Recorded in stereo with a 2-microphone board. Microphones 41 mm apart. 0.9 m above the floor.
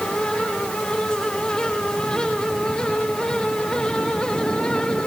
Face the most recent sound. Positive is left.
No sound to turn to.